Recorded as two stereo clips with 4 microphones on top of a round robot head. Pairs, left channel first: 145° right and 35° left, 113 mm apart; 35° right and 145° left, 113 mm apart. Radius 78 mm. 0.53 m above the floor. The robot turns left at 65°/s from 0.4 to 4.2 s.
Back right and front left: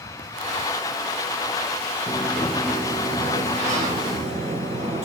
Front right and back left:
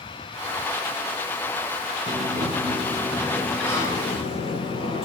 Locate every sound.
2.1 s a sliding door: 145° left, 3.5 m; by 5.1 s 5° left, 3.5 m